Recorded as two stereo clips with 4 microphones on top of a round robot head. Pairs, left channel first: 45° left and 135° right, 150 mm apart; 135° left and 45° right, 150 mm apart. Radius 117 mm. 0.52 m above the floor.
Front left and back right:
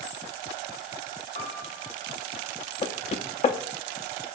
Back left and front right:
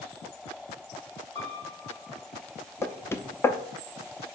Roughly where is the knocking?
Ahead left.